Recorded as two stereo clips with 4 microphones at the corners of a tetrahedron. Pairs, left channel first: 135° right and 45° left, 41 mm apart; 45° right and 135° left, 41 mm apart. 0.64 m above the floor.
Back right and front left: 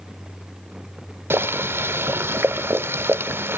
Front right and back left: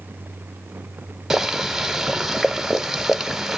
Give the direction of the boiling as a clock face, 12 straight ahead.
10 o'clock.